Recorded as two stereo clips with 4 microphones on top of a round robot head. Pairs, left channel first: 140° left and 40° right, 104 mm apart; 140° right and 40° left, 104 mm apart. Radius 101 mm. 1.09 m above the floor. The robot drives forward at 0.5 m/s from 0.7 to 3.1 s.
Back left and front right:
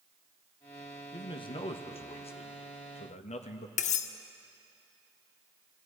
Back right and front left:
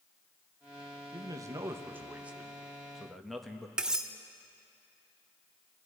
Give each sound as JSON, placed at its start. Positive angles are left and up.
{"t": 1.1, "sound": "a man speaking", "azimuth_deg": 95, "distance_m": 1.2}
{"t": 3.8, "sound": "cutlery clinking", "azimuth_deg": 125, "distance_m": 0.5}